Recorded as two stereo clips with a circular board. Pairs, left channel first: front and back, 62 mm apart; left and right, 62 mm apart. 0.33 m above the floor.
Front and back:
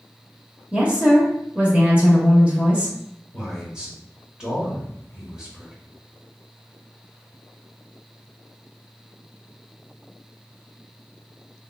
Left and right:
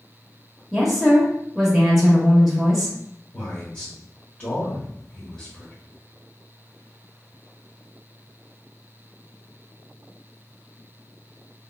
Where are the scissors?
No scissors in this recording.